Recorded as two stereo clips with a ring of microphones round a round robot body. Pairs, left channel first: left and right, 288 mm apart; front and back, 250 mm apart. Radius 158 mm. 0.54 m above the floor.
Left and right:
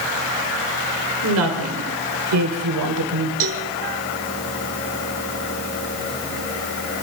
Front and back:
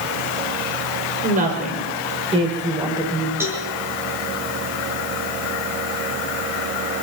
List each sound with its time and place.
1.2 s a woman speaking: 125° right, 3 m; by 3.3 s 100° right, 3 m
3.4 s a cowbell: 100° right, 1.9 m